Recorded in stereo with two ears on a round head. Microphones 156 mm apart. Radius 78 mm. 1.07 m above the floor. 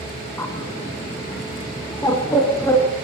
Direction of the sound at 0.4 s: 15° left (ahead or behind).